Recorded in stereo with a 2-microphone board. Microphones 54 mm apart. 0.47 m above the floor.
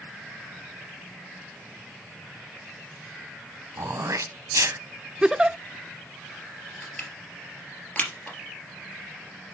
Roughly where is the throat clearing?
Right.